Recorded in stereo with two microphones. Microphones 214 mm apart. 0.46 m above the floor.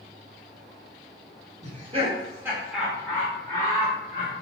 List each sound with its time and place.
1.6 s laughter: 35° right (ahead or behind), 1.0 m; by 4.3 s 30° left (ahead or behind), 1.5 m